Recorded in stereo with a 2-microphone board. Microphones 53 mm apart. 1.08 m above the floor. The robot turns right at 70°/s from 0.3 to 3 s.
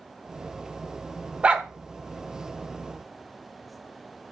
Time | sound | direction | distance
1.4 | a dog barking | 25° right (ahead or behind) | 0.8 m